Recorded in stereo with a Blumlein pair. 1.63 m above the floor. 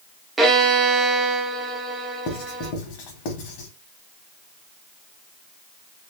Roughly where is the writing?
Ahead left.